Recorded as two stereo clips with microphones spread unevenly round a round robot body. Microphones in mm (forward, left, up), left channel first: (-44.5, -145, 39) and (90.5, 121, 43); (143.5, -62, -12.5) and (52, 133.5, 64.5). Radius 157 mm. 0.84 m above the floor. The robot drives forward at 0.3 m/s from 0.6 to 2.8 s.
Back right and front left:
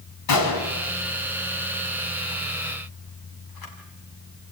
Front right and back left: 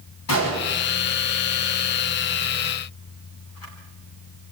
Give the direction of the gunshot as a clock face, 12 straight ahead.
3 o'clock.